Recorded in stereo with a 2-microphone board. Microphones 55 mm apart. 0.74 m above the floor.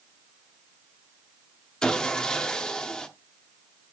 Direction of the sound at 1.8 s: 15° left (ahead or behind).